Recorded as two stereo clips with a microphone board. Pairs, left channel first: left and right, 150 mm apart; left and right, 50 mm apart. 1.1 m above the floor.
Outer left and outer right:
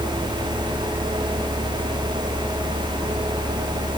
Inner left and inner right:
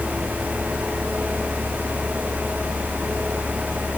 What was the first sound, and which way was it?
Only background noise.